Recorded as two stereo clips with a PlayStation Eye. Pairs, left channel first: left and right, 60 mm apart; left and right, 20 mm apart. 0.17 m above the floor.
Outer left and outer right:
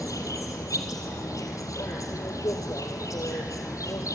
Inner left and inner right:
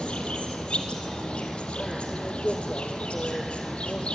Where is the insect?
70° left (ahead or behind), 2 m.